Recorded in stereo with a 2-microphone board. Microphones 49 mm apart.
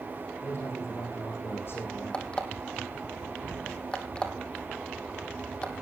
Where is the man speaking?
55° left (ahead or behind), 7.5 m; by 2.2 s 50° left (ahead or behind), 7 m.